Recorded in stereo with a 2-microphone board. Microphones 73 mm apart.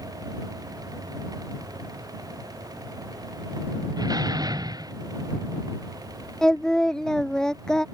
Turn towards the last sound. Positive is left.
turn(degrees=10)  # may be behind; listen again after turning